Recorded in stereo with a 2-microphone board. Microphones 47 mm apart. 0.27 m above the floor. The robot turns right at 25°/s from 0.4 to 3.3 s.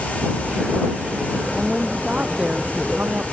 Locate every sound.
1.5 s a woman speaking: 175° right; by 3.4 s 130° right